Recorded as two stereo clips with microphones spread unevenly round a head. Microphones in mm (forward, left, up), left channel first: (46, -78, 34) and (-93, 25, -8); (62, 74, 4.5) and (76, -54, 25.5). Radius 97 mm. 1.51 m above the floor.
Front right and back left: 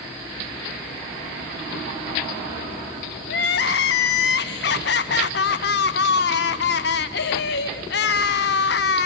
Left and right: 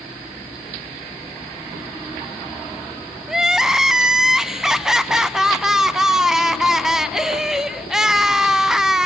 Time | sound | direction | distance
3.3 | crying | 5° left | 0.6 m